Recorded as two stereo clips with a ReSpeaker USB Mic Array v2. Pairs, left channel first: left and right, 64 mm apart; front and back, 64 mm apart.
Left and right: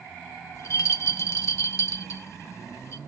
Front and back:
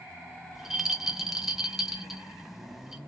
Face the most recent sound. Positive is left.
turn(degrees=95)